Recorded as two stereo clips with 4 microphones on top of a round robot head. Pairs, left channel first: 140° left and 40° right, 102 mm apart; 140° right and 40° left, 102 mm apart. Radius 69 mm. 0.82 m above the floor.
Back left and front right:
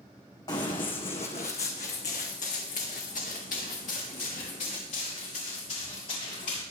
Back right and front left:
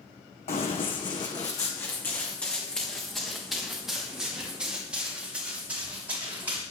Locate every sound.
0.5 s running footsteps: 170° right, 2 m; by 6.6 s 115° left, 6.5 m